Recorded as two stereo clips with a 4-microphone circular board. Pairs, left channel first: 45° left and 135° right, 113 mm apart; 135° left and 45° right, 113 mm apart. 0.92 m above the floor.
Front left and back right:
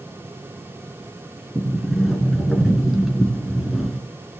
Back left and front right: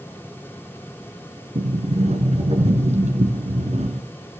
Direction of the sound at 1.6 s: 45° right.